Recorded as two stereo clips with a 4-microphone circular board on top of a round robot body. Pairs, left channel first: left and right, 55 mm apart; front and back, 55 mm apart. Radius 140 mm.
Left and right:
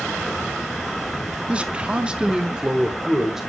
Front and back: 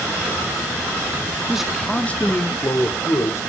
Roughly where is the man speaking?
Behind right.